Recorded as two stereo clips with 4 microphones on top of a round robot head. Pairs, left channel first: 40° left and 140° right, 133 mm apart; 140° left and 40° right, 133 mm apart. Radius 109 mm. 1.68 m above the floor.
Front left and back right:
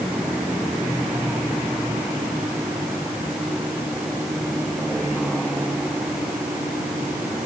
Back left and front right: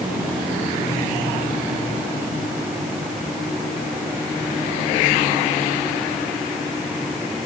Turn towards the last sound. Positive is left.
No sound to turn to.